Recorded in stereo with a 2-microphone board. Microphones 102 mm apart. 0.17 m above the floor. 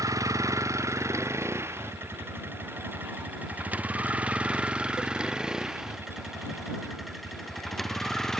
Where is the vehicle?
30° right (ahead or behind); by 8.4 s 5° left (ahead or behind).